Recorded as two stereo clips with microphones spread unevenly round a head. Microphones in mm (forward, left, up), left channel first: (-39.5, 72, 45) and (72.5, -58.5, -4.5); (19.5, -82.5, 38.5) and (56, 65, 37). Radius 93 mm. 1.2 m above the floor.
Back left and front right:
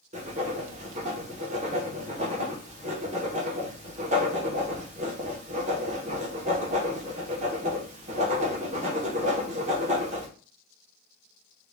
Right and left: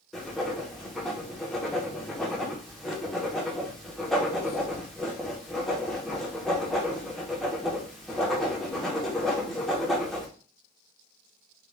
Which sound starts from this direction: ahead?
Writing, at 0.1 s.